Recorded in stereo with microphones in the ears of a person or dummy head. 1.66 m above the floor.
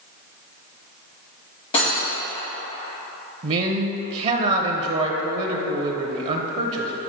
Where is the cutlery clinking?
35° left (ahead or behind), 1.8 m.